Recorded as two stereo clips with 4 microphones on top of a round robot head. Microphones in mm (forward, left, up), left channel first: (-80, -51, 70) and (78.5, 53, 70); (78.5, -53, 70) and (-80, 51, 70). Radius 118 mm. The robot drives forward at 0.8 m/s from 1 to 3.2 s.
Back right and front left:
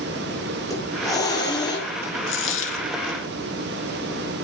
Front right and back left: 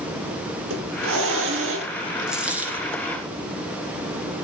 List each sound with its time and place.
0.7 s a hiss: 140° left, 7.5 m; by 1.9 s 145° left, 8 m
2.3 s a dropped coin: 125° right, 3.5 m; by 2.9 s 135° right, 4 m